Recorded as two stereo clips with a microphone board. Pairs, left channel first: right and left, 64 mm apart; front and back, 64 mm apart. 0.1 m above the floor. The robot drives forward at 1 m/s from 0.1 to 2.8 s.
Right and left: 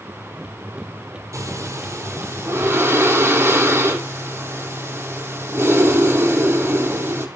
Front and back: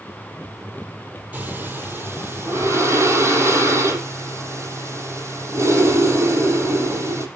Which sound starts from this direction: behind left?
Breathing, at 1.3 s.